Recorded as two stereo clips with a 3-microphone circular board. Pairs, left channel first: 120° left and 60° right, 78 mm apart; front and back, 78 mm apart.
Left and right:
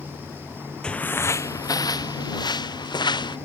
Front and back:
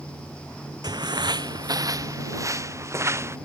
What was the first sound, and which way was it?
Footsteps, 165° right.